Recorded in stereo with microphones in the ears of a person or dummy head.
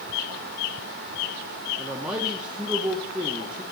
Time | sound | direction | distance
1.8 | a man speaking | 5° right (ahead or behind) | 0.9 m